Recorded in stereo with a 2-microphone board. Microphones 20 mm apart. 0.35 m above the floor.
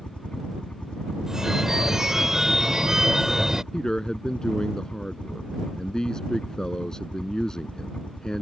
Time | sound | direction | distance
0.0 | a helicopter | 60° left (ahead or behind) | ?
1.3 | a phone ringing | 25° right (ahead or behind) | ?
3.7 | a man speaking | 35° left (ahead or behind) | ?